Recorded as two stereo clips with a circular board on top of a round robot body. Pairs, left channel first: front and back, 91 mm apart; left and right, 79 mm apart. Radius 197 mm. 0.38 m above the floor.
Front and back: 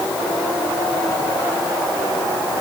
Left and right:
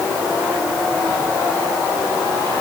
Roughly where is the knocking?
I don't hear knocking.